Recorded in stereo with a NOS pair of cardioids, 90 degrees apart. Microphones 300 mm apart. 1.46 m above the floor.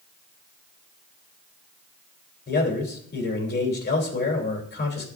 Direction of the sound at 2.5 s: 35° left.